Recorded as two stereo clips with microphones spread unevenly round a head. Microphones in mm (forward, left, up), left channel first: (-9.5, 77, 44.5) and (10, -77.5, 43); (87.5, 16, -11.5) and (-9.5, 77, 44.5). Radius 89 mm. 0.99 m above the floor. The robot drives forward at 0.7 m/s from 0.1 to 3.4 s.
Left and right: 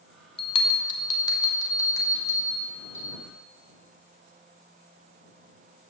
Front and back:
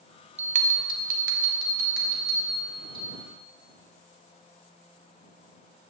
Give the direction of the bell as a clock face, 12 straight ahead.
8 o'clock.